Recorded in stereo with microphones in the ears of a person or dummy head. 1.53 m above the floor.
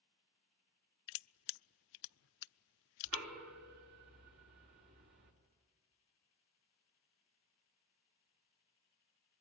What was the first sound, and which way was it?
Crushing, 60° left (ahead or behind).